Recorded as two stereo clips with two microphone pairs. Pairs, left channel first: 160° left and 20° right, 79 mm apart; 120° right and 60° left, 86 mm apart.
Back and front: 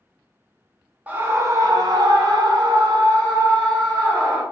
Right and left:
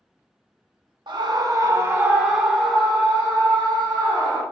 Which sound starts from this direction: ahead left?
A scream, at 1.1 s.